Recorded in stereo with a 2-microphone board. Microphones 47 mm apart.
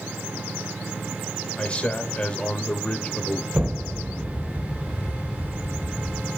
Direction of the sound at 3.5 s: 25° right (ahead or behind).